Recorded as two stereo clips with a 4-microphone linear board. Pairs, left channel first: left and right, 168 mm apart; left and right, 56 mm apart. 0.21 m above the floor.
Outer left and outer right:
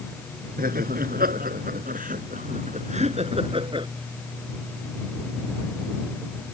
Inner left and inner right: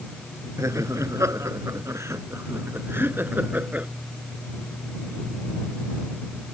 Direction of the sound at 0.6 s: 60° right (ahead or behind).